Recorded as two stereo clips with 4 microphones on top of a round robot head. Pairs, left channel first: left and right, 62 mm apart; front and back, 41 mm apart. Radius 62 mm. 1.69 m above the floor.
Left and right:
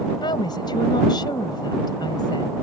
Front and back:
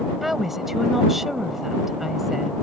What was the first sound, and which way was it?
A woman speaking, 95° left.